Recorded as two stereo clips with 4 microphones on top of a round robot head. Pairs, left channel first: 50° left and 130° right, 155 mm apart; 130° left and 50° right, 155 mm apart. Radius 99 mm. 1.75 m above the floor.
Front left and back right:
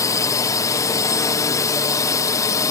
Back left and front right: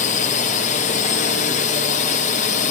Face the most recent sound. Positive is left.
turn(degrees=115)